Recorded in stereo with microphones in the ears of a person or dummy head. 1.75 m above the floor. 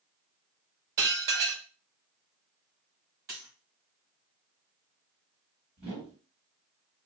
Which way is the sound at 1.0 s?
55° right (ahead or behind).